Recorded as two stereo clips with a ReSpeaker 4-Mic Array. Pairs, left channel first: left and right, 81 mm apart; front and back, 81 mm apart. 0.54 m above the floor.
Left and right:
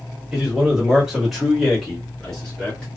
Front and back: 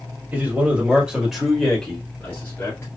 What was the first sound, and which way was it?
A man speaking, 160° right.